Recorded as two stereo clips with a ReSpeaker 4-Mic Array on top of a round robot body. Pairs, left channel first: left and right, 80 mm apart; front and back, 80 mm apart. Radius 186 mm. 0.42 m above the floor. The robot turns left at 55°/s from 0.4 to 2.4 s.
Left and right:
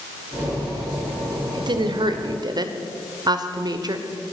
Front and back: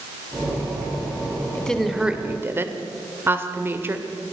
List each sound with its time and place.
1.5 s a woman speaking: 70° right, 2.0 m; by 4.0 s 120° right, 2.0 m